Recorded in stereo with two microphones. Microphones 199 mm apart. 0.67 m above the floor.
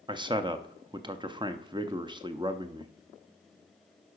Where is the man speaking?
25° right (ahead or behind), 0.5 m.